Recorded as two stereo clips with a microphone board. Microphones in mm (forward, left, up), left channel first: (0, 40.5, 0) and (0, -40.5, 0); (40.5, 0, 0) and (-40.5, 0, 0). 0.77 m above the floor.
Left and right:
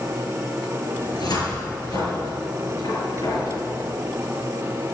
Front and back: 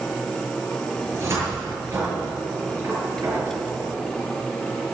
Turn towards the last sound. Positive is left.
turn(degrees=120)